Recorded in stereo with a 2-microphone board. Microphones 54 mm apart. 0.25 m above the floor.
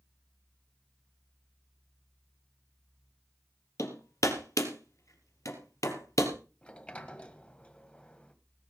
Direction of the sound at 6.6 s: 20° left (ahead or behind).